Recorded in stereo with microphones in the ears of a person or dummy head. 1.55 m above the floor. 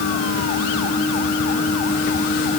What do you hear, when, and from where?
Only background noise.